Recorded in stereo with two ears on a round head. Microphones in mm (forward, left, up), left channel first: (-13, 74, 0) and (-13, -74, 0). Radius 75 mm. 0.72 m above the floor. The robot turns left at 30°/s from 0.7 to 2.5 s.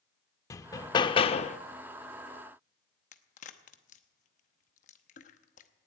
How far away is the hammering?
About 0.5 m.